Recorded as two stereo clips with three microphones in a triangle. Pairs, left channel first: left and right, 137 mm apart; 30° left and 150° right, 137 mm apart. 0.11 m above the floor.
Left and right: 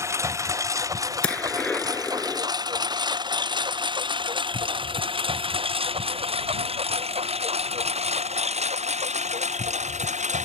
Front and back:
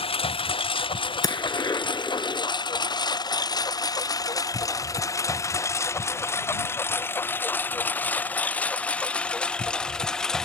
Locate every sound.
0.0 s a lawn mower: 20° right; by 10.5 s 55° right
1.2 s a gunshot: 15° left